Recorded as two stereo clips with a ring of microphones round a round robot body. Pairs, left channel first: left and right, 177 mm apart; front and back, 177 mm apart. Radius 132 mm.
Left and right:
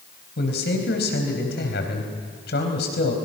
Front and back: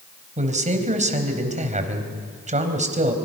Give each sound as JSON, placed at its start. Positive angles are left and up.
{"t": 0.4, "sound": "a man speaking", "azimuth_deg": 130, "distance_m": 3.5}